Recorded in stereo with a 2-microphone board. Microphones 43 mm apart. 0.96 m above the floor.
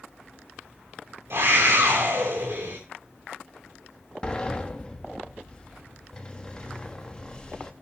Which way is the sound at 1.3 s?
60° right (ahead or behind).